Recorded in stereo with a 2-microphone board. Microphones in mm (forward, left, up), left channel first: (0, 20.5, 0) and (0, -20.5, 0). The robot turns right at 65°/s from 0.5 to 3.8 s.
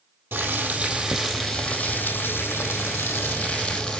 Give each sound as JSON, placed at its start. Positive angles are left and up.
{"t": 0.3, "sound": "boiling", "azimuth_deg": -55, "distance_m": 2.0}